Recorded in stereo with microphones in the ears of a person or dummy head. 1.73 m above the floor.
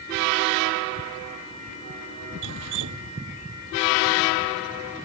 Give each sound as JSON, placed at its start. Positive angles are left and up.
{"t": 2.4, "sound": "dripping", "side_deg": -55}